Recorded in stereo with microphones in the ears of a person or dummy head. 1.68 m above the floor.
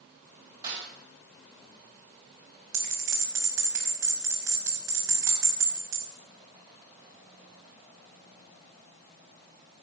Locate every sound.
0.6 s a snare drum: 30° right (ahead or behind), 7 m
2.7 s a bell: 15° right (ahead or behind), 5.5 m